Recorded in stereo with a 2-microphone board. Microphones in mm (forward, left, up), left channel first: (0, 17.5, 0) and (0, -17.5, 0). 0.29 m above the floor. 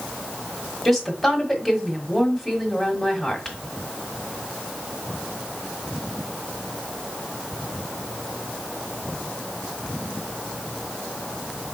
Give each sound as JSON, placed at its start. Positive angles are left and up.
{"t": 0.8, "sound": "a woman speaking", "side_deg": 5, "distance_m": 1.4}